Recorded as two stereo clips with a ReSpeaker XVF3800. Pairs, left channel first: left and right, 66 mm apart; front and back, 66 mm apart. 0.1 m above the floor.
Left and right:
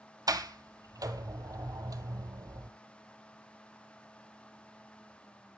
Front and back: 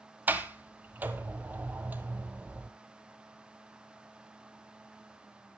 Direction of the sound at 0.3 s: 115° right.